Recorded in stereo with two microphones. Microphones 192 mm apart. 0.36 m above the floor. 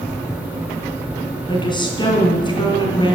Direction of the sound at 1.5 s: 25° left (ahead or behind).